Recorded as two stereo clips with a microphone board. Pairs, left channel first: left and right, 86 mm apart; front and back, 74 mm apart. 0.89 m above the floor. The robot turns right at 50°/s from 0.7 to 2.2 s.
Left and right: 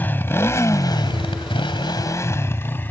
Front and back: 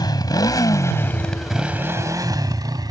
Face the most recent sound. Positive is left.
turn(degrees=160)